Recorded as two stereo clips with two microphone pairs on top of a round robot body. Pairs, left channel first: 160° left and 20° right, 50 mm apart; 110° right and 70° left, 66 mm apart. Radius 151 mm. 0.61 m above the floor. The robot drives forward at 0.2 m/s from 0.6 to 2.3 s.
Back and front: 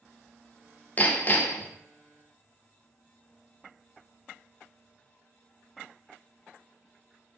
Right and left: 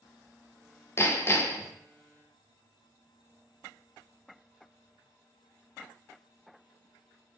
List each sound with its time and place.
1.0 s hammering: 150° right, 0.9 m; by 1.7 s 155° right, 1.0 m